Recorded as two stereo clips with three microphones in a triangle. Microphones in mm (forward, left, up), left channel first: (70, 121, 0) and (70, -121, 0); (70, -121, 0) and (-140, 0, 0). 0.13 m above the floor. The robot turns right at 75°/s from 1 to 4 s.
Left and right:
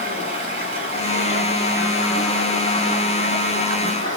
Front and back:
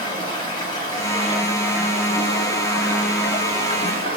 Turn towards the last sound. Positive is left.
turn(degrees=135)